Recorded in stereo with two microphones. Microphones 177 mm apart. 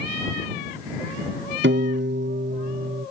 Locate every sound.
1.6 s a piano: 75° right (ahead or behind)